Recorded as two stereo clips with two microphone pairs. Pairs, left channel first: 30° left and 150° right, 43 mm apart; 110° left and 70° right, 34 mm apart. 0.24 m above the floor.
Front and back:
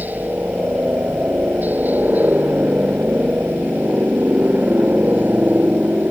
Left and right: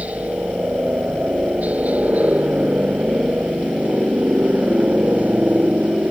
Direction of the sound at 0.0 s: 110° right.